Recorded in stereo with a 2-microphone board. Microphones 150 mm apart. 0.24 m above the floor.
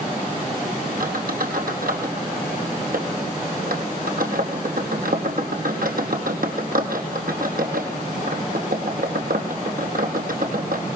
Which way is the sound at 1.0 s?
75° right (ahead or behind).